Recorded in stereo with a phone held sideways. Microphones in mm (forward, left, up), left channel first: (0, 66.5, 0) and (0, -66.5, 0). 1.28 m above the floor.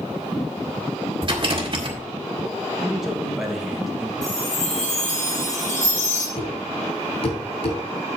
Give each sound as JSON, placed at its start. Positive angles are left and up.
{"t": 1.2, "sound": "a rattle", "side_deg": -40, "distance_m": 2.0}
{"t": 2.8, "sound": "a man speaking", "side_deg": -5, "distance_m": 1.8}
{"t": 4.2, "sound": "a chime", "side_deg": 70, "distance_m": 6.0}
{"t": 6.4, "sound": "a thud", "side_deg": 50, "distance_m": 3.5}